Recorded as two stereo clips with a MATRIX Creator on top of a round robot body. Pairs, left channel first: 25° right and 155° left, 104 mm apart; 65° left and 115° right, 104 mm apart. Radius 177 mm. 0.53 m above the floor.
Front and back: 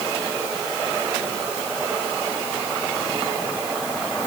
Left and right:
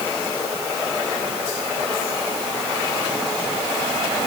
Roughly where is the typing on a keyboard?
No typing on a keyboard in this recording.